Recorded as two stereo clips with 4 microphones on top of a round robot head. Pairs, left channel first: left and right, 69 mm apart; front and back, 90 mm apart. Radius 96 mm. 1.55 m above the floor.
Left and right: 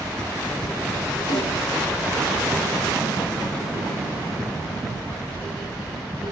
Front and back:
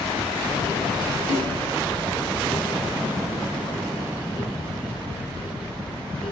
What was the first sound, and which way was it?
A snare drum, 80° left.